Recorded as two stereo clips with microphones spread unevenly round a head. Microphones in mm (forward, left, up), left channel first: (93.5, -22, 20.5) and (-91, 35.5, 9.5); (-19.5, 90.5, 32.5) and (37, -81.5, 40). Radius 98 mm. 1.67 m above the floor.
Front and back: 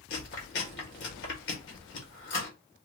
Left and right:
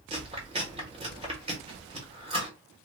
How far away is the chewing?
About 1.3 m.